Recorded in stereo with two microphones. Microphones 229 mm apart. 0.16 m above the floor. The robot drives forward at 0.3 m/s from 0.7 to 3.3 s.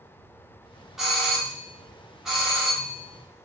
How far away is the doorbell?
About 1.4 m.